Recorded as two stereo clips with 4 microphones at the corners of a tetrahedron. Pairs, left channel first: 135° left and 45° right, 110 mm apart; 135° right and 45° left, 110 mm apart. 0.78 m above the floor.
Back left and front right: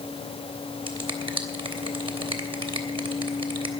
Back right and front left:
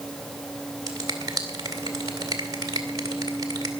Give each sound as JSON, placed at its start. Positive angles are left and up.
{"t": 0.9, "sound": "a finger snap", "azimuth_deg": -10, "distance_m": 2.5}